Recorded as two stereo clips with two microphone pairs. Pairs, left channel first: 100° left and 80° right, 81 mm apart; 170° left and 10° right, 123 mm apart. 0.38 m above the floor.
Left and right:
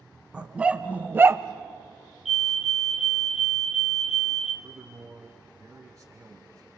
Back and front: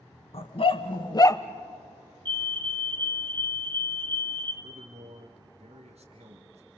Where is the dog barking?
155° right, 1.4 m; by 1.4 s 120° right, 0.5 m.